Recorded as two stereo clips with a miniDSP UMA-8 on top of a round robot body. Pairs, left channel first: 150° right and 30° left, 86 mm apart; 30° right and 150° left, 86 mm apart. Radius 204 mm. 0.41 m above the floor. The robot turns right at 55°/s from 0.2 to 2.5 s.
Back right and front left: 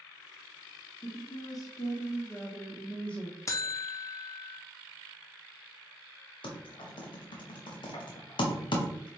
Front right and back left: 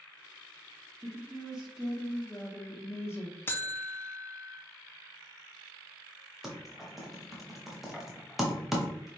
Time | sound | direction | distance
1.0 | a woman speaking | 160° right | 1.1 m
3.5 | a buzzer | 95° right | 0.5 m
6.4 | typing on a keyboard | 125° right | 0.7 m